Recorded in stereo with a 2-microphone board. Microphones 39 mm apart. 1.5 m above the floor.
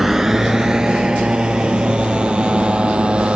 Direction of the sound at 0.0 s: 5° right (ahead or behind).